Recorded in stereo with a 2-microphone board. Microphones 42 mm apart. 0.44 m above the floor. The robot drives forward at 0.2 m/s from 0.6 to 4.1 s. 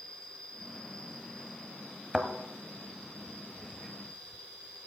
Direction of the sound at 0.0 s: 10° left (ahead or behind).